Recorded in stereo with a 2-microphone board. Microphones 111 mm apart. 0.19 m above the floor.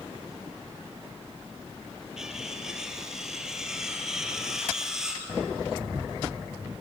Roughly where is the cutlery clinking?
Centre.